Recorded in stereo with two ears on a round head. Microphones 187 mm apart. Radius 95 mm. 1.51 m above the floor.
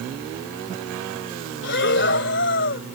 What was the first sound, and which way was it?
Breathing, 60° left (ahead or behind).